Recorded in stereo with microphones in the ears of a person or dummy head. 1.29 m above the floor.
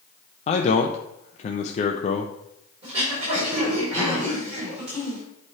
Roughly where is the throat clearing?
Right.